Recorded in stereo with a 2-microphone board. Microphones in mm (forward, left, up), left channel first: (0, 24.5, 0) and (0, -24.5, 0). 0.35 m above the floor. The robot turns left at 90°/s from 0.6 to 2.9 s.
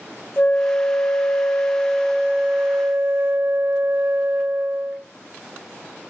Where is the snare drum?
I don't hear a snare drum.